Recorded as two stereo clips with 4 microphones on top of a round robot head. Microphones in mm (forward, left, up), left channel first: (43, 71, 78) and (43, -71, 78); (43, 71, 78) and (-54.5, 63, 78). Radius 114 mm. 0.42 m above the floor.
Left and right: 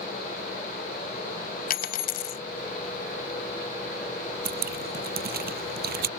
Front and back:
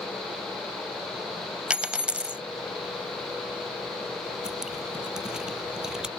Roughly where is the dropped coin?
Left.